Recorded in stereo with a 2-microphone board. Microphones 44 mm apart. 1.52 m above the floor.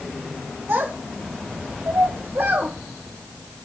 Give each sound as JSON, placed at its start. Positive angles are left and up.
{"t": 0.7, "sound": "a child speaking", "side_deg": -55, "distance_m": 0.9}